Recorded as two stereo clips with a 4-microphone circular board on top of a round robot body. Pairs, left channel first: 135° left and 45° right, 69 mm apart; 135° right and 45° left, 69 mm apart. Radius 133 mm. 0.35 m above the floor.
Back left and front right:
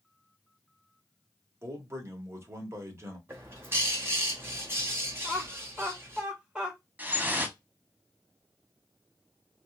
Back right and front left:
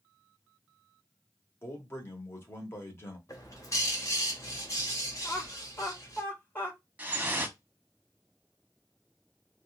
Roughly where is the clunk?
I don't hear a clunk.